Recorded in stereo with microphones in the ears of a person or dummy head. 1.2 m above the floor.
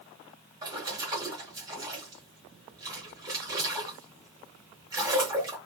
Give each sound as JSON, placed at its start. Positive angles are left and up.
{"t": 0.6, "sound": "a splash", "side_deg": -20, "distance_m": 0.9}